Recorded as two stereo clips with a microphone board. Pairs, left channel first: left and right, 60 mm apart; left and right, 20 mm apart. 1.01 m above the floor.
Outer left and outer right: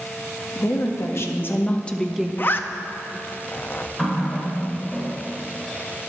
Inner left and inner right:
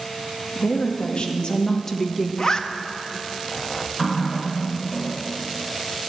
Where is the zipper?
35° left (ahead or behind), 0.5 m.